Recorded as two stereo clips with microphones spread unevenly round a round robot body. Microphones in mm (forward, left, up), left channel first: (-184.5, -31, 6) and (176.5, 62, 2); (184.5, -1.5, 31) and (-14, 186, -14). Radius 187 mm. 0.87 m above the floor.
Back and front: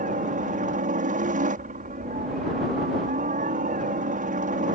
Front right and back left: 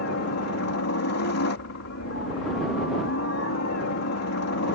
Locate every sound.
0.0 s a helicopter: 50° right